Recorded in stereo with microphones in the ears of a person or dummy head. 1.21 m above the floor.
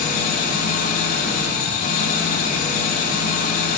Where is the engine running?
50° left (ahead or behind), 2.5 m.